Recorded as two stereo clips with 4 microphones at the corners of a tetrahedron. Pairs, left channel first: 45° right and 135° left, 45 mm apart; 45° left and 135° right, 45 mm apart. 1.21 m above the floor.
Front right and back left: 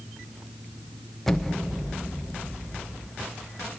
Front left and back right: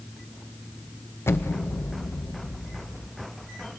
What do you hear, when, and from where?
1.3 s an explosion: 35° left, 0.6 m